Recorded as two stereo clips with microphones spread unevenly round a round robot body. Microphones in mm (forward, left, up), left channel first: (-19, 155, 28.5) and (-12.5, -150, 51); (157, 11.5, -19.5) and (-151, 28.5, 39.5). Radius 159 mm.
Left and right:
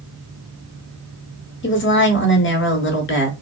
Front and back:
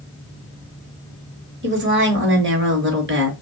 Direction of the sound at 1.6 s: 125° left.